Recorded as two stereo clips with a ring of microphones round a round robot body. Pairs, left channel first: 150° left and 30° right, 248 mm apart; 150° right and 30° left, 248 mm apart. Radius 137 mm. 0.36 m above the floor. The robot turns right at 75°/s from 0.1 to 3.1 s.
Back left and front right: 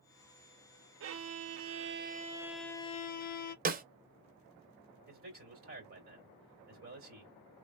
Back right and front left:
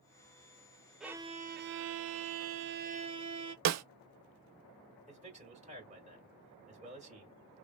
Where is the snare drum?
25° left, 0.6 m.